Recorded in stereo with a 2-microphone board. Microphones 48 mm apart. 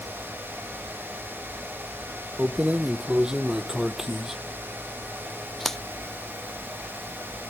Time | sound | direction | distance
2.4 | keys jangling | 30° right (ahead or behind) | ?